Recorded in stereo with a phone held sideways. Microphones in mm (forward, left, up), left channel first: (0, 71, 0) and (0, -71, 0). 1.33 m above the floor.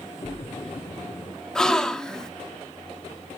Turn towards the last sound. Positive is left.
turn(degrees=5)  # may be behind; listen again after turning